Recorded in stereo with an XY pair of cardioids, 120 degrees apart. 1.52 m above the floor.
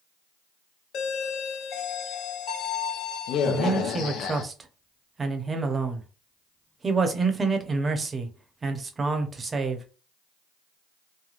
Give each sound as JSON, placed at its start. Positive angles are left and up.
{"t": 0.9, "sound": "a doorbell", "azimuth_deg": 65, "distance_m": 0.7}
{"t": 3.4, "sound": "a man speaking", "azimuth_deg": -25, "distance_m": 0.8}